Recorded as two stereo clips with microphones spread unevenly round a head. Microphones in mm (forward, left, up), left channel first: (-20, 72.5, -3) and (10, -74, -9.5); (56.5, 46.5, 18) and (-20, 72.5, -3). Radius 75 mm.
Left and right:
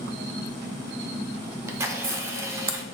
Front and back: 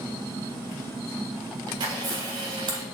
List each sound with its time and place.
1.7 s a camera shutter: 150° right, 0.6 m